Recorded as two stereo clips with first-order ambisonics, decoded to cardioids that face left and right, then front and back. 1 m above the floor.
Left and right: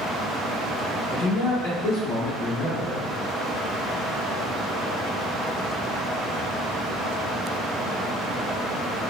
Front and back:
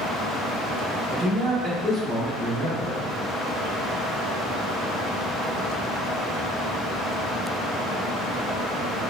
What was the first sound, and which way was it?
A man speaking, 115° left.